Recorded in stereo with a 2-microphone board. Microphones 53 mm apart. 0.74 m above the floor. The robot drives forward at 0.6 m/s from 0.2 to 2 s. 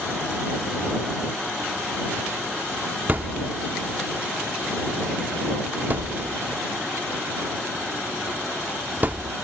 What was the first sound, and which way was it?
A thud, 35° right (ahead or behind).